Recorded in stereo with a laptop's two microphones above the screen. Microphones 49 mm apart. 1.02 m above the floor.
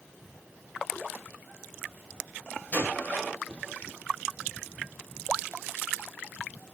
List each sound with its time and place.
2.7 s a gunshot: 35° left (ahead or behind), 4.5 m